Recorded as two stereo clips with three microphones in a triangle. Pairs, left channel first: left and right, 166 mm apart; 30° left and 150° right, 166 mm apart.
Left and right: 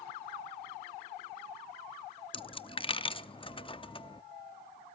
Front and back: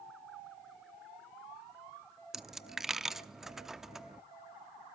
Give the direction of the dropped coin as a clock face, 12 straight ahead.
8 o'clock.